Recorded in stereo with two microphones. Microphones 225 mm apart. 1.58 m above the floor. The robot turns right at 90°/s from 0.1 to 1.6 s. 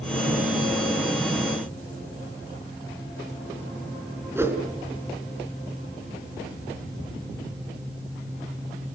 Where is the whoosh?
10° right (ahead or behind), 4 m.